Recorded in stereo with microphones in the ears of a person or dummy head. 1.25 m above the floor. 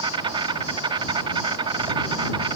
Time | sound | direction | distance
0.0 | an insect | 30° right (ahead or behind) | ?